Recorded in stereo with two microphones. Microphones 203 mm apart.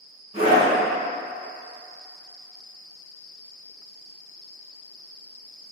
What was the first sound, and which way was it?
A scream, 30° right (ahead or behind).